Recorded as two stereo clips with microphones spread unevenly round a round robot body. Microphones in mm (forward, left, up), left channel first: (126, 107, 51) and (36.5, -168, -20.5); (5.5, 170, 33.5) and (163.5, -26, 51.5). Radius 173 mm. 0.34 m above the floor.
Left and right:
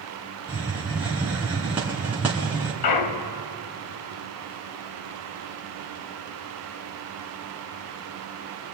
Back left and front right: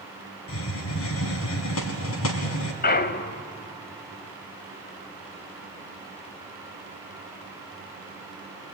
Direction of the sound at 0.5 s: 170° left.